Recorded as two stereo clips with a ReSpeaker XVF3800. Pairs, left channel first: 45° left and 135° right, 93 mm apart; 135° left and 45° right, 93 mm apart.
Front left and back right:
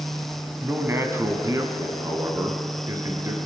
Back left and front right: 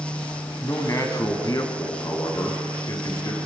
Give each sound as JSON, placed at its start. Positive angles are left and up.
{"t": 0.6, "sound": "a man speaking", "azimuth_deg": 175, "distance_m": 1.4}